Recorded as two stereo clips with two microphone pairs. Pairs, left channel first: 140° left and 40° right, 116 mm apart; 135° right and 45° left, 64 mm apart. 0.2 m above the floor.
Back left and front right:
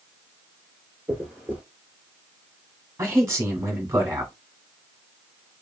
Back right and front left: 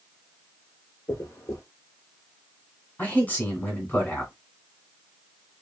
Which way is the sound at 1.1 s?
120° right.